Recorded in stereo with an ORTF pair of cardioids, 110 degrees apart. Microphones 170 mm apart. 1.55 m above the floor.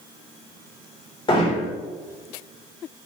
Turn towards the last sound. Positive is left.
turn(degrees=30)